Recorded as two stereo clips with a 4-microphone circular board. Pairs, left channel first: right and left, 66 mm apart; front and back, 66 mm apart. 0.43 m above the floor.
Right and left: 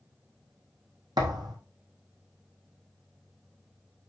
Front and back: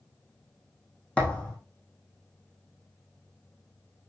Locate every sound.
1.2 s a thud: 75° left, 4 m